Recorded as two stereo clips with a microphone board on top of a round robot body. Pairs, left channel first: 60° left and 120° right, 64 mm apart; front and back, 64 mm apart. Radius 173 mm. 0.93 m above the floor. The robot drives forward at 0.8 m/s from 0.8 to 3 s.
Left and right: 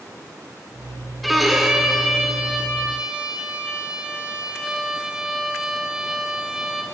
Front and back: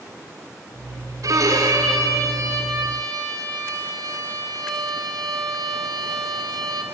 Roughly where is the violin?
Behind left.